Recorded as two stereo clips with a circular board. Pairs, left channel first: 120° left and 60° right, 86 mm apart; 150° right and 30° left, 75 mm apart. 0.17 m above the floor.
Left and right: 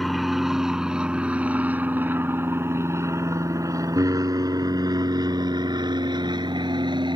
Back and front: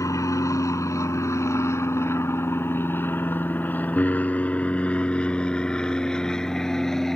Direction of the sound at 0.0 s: 150° right.